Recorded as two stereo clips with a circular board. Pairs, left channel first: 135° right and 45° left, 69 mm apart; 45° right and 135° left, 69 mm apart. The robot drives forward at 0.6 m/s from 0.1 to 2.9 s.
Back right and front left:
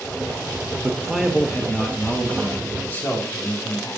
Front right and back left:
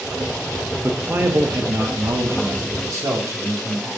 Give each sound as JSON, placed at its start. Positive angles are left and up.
{"t": 0.8, "sound": "a man speaking", "azimuth_deg": 95, "distance_m": 0.8}